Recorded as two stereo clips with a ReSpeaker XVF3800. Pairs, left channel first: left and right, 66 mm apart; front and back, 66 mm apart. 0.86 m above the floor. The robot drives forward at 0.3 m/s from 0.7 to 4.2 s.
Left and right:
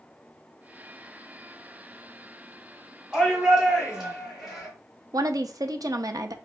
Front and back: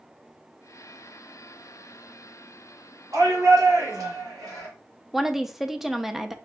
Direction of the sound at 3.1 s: 170° right.